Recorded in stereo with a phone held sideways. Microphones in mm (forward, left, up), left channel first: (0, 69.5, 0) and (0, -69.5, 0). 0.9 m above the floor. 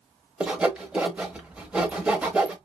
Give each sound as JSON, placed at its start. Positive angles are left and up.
{"t": 0.4, "sound": "sawing", "side_deg": -10, "distance_m": 0.8}